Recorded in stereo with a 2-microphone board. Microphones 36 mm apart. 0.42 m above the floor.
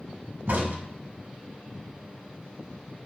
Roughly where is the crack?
Right.